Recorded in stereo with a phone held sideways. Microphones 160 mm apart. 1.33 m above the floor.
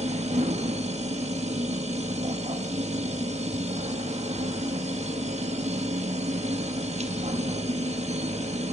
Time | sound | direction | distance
0.0 | a machine running | 45° right (ahead or behind) | 1.0 m